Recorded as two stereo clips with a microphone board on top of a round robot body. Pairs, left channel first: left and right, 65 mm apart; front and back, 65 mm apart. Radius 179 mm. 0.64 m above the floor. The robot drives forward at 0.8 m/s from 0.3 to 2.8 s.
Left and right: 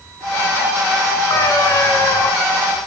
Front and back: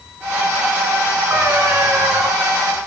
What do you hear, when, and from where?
1.3 s a cat meowing: 125° left, 4.5 m; by 2.3 s 130° left, 5 m